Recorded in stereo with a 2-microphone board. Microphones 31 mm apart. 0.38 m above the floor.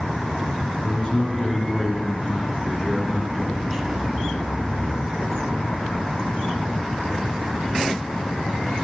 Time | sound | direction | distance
0.8 | a man speaking | 30° left (ahead or behind) | 4 m